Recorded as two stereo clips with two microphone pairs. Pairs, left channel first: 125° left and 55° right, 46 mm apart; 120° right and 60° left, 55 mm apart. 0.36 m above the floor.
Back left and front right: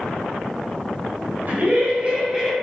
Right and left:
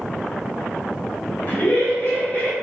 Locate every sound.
1.5 s laughter: 80° right, 1.9 m; by 2.5 s 125° right, 1.2 m